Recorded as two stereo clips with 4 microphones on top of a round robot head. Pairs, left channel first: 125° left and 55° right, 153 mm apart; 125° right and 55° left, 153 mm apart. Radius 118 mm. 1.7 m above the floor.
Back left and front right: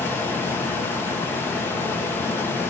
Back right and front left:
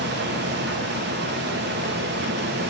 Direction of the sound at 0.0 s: 50° left.